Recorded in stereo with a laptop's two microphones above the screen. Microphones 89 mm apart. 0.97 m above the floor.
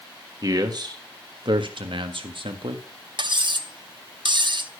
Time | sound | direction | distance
0.4 | a man speaking | 45° right (ahead or behind) | 1.5 m
3.2 | cutlery clinking | 60° right (ahead or behind) | 0.8 m